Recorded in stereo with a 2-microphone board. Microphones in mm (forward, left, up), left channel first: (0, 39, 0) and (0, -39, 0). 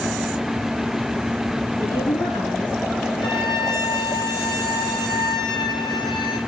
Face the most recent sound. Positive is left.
turn(degrees=80)